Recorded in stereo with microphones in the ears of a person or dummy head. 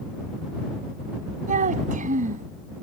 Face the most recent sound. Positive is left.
turn(degrees=-45)  # may be behind; listen again after turning